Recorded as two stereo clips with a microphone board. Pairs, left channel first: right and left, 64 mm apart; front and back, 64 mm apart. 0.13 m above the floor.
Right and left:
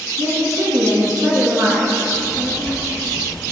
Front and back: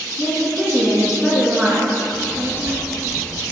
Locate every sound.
0.2 s a woman speaking: 100° left, 1.5 m
2.1 s a child speaking: 140° right, 1.1 m